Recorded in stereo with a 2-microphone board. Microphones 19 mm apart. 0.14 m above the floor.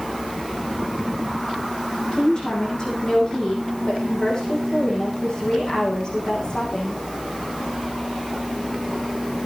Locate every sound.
2.1 s a woman speaking: 40° left (ahead or behind), 9.5 m